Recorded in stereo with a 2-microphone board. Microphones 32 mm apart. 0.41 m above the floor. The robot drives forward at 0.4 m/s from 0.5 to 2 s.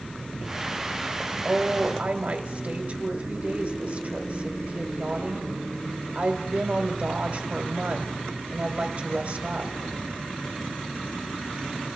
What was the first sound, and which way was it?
A woman speaking, 40° right (ahead or behind).